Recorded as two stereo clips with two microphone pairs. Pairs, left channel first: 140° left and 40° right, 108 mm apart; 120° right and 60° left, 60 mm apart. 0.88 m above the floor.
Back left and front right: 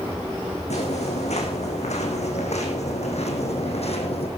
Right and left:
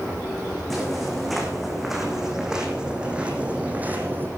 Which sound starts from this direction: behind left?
Footsteps, at 0.7 s.